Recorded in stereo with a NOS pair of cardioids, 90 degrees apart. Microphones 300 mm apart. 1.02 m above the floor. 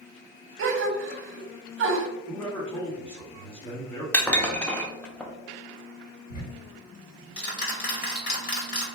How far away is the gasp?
About 0.7 m.